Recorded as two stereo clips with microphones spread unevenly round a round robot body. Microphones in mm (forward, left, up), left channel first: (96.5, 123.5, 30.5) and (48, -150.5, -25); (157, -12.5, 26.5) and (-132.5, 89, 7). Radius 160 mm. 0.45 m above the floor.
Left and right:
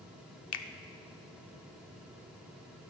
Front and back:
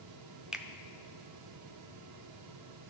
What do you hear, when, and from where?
0.5 s a finger snap: 80° left, 0.7 m